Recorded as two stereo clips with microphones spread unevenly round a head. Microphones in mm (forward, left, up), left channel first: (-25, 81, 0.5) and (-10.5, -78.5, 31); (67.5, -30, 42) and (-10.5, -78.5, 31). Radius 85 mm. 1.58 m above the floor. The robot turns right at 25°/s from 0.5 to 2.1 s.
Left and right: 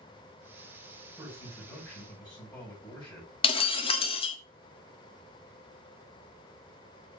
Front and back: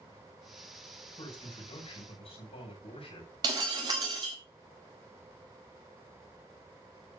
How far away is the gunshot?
No gunshot in this recording.